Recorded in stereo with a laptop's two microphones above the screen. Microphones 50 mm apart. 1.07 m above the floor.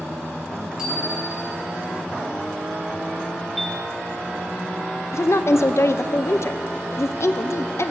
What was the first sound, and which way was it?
A bicycle bell, 15° right (ahead or behind).